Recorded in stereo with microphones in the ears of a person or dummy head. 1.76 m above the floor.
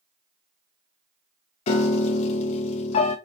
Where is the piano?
40° left (ahead or behind), 0.9 m.